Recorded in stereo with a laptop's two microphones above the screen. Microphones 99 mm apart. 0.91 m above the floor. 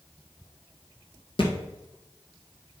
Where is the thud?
55° left (ahead or behind), 1.7 m.